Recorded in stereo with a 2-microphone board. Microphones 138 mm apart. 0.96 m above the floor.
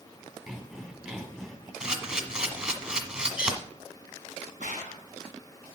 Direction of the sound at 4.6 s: 75° left (ahead or behind).